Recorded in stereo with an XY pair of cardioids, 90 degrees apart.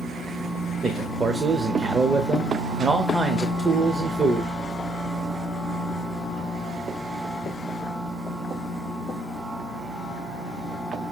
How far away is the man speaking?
About 0.7 m.